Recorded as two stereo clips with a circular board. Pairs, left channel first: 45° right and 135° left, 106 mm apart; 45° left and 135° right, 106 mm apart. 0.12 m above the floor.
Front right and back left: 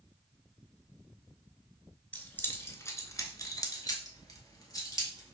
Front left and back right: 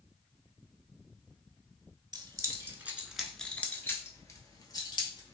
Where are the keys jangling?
115° right, 0.9 m; by 5.3 s 10° left, 1.5 m.